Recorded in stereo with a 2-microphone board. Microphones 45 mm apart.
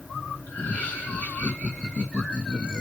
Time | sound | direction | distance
0.5 | laughter | 55° left (ahead or behind) | 2.5 m